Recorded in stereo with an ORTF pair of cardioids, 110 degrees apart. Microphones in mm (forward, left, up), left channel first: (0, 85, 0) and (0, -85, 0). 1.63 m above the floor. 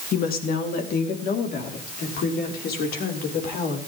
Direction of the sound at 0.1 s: 60° left.